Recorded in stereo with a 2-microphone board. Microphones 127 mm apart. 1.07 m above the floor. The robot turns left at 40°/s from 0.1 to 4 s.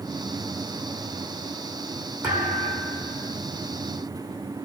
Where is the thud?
160° right, 2.5 m; by 3.3 s 155° left, 2.5 m.